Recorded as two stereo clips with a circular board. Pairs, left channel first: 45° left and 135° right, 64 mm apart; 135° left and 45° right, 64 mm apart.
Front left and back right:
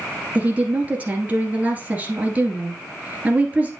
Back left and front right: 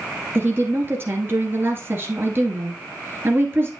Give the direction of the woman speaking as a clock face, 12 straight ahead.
3 o'clock.